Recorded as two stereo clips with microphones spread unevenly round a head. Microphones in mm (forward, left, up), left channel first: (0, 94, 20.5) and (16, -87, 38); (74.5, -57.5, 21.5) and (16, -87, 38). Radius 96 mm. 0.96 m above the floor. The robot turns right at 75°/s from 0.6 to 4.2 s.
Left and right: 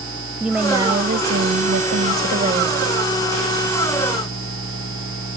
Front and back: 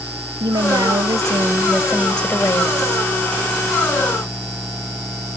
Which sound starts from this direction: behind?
A woman speaking, at 0.4 s.